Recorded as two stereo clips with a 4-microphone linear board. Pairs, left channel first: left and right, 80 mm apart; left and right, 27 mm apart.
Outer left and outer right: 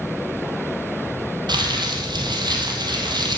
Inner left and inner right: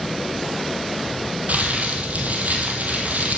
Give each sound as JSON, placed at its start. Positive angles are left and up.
{"t": 1.5, "sound": "crumpling", "side_deg": -65, "distance_m": 3.0}